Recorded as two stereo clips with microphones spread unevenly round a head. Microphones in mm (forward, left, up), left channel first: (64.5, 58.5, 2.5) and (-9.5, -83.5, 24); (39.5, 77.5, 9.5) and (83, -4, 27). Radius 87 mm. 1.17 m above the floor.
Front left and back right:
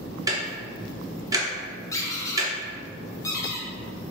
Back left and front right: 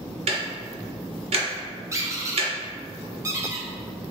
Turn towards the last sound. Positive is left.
turn(degrees=-10)